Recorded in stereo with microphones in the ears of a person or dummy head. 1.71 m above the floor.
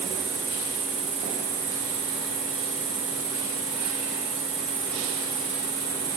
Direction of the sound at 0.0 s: 45° right (ahead or behind).